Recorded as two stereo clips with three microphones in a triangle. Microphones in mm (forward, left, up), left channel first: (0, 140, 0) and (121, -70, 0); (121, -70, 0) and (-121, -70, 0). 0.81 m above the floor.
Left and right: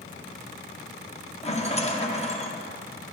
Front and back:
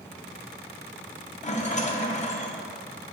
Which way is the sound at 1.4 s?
55° left.